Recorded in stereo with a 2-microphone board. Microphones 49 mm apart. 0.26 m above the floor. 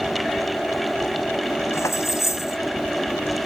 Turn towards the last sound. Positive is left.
turn(degrees=80)